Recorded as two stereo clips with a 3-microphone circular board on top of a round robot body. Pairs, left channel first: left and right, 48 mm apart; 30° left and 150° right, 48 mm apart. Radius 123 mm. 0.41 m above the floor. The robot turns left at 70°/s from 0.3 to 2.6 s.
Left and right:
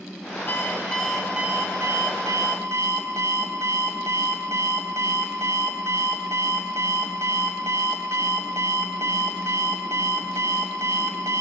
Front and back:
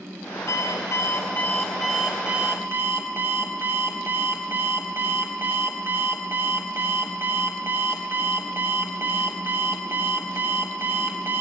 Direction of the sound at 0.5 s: 45° left.